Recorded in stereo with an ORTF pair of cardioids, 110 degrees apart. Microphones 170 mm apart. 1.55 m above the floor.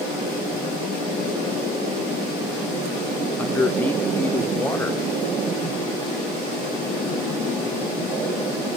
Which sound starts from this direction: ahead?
A man speaking, at 3.4 s.